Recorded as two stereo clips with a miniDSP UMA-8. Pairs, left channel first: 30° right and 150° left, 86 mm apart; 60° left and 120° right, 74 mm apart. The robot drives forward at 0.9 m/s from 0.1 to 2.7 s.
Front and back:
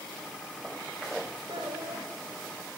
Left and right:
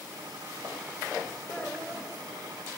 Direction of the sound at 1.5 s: 135° left.